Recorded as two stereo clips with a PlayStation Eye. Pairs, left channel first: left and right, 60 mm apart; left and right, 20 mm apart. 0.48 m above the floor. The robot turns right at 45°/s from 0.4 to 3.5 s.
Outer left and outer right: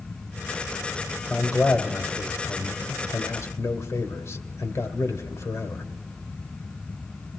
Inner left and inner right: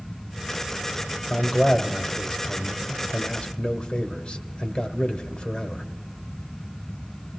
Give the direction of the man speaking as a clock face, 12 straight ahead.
12 o'clock.